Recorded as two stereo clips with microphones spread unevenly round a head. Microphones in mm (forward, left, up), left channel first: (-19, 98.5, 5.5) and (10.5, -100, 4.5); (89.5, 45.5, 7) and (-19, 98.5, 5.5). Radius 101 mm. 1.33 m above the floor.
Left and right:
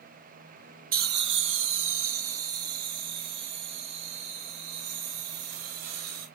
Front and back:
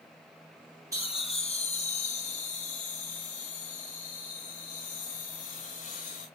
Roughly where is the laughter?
Behind right.